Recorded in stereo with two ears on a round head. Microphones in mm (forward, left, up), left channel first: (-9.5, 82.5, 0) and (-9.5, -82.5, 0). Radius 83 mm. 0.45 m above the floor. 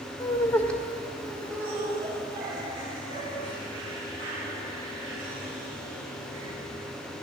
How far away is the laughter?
About 1.0 m.